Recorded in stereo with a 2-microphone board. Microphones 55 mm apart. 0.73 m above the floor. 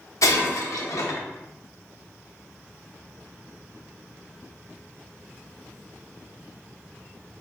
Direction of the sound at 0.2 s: 80° left.